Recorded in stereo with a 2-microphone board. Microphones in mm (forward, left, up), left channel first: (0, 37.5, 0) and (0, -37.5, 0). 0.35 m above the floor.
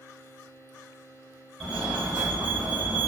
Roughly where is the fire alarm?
Centre.